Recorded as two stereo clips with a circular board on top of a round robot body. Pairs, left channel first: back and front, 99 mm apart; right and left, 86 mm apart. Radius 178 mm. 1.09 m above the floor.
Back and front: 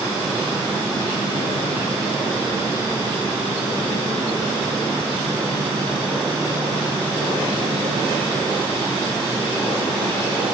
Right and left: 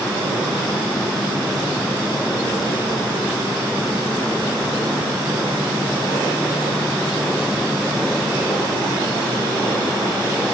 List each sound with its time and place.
Only background noise.